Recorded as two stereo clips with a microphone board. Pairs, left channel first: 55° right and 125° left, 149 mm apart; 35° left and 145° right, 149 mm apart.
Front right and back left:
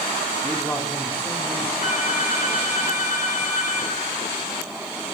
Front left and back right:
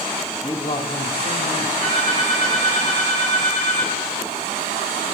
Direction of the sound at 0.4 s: Straight ahead.